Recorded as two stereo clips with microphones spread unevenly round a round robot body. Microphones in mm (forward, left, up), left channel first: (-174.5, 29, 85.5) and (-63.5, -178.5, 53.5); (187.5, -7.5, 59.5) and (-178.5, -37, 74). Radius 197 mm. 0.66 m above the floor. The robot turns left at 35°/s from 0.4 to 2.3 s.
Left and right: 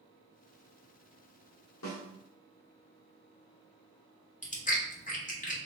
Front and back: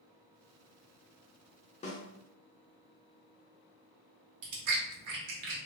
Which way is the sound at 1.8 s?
80° left.